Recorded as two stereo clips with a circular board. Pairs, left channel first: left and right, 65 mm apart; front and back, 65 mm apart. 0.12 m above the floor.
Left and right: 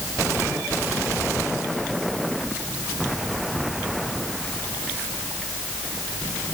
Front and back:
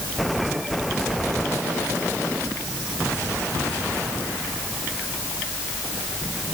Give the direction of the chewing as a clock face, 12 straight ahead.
No chewing in this recording.